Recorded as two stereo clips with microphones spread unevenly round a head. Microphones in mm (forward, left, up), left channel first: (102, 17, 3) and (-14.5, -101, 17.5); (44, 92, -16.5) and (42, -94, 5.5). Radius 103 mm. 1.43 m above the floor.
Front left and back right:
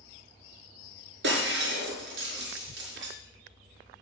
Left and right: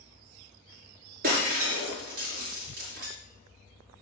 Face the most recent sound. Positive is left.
turn(degrees=-140)